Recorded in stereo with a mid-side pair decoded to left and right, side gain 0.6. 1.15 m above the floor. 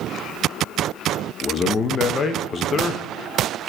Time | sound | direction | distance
1.4 | a man speaking | 35° left | 1.2 m